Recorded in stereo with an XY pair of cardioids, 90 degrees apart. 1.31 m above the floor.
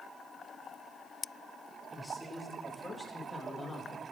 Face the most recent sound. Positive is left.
turn(degrees=30)